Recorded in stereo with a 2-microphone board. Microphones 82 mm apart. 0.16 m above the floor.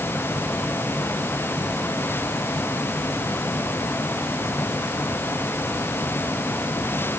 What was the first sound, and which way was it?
Only background noise.